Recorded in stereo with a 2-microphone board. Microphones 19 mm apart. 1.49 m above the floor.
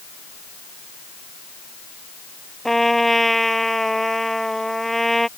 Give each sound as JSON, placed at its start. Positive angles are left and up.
{"t": 2.6, "sound": "a trumpet", "side_deg": 10}